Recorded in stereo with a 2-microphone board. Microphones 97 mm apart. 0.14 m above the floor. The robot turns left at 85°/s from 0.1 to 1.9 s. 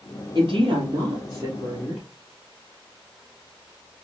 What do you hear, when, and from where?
0.3 s a woman speaking: 50° right, 3 m; by 2.1 s 175° left, 3 m